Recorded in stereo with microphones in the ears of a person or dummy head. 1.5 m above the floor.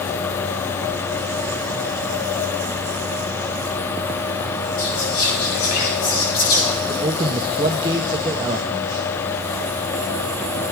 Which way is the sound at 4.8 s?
50° left (ahead or behind).